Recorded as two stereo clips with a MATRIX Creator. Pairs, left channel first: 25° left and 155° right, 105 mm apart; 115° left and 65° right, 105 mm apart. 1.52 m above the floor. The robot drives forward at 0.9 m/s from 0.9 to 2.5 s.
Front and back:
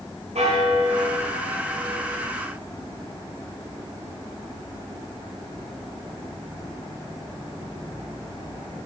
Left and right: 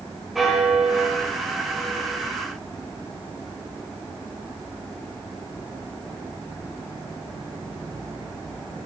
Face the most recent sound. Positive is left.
turn(degrees=-160)